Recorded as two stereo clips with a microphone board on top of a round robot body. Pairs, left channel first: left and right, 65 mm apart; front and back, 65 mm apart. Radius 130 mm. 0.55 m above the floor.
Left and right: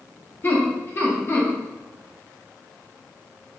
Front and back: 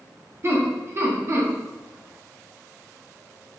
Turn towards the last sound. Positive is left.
turn(degrees=140)